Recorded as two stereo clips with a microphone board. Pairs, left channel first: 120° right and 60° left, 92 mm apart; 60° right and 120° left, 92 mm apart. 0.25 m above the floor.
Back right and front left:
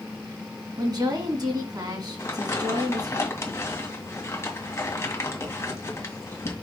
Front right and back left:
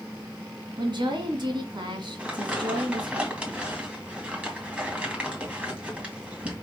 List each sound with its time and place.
0.8 s a woman speaking: 95° left, 2.5 m
2.2 s crumpling: 165° right, 2.5 m